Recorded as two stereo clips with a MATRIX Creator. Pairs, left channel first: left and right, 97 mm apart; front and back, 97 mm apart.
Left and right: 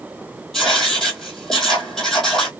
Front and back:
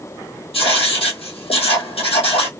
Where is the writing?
5° left, 1.5 m.